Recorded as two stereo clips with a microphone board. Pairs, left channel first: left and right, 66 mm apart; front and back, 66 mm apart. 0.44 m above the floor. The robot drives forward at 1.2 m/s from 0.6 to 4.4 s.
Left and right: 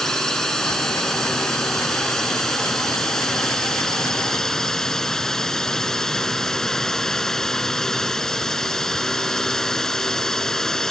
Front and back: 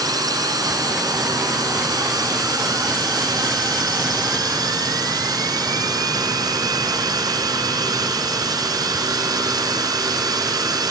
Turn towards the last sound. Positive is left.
turn(degrees=175)